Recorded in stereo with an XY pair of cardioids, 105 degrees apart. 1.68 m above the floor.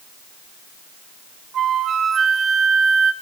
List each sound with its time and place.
1.5 s a flute: 55° right, 1.5 m